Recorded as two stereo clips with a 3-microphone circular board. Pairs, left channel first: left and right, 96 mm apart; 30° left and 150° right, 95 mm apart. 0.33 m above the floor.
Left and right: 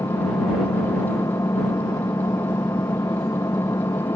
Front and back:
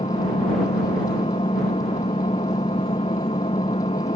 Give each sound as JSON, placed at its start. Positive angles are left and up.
{"t": 0.0, "sound": "an engine running", "azimuth_deg": 30}